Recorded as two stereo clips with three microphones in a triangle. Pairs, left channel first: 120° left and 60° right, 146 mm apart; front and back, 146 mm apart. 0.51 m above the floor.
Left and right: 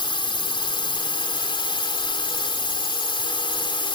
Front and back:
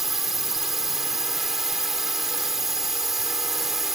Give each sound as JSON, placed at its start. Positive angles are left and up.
{"t": 0.0, "sound": "a drone", "azimuth_deg": 95}